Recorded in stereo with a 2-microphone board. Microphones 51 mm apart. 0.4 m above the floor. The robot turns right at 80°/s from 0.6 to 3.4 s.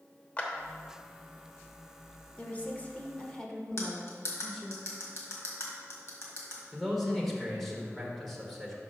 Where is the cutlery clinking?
55° left (ahead or behind), 1.6 m.